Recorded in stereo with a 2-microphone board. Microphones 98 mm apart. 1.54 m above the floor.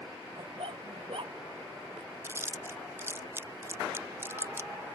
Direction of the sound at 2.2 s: 25° right (ahead or behind).